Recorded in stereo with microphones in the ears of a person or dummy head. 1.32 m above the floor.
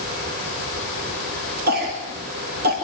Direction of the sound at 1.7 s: 50° right (ahead or behind).